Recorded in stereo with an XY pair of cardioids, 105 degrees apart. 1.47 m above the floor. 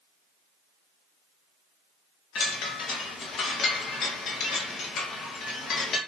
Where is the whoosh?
I don't hear a whoosh.